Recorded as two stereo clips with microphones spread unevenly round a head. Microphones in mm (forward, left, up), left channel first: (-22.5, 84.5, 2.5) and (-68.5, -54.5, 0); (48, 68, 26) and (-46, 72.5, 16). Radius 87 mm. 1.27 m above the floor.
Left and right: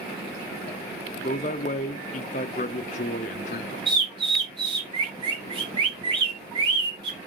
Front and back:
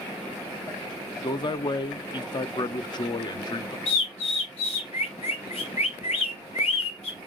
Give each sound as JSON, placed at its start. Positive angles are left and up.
{"t": 1.2, "sound": "a man speaking", "azimuth_deg": 30, "distance_m": 0.7}
{"t": 3.9, "sound": "a bird", "azimuth_deg": -45, "distance_m": 1.1}